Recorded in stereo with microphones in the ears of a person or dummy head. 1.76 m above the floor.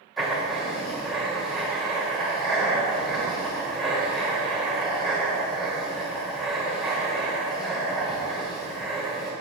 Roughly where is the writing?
Centre.